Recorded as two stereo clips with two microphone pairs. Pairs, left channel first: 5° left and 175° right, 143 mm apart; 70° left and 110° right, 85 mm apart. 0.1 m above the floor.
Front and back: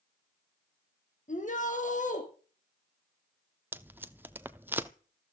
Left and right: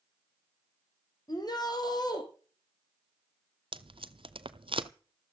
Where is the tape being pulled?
100° right, 0.8 m.